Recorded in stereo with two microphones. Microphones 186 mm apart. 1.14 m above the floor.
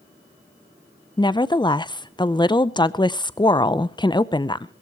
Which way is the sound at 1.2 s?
25° left (ahead or behind).